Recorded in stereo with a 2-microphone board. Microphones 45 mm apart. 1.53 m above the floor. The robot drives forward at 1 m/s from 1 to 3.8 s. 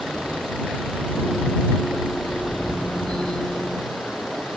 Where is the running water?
5° right (ahead or behind).